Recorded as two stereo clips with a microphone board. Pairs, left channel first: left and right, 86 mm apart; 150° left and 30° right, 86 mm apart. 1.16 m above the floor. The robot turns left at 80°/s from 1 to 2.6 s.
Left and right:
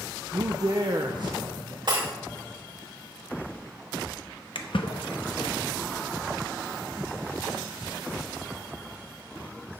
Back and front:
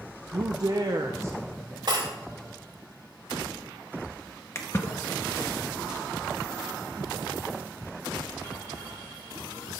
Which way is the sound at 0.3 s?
60° right.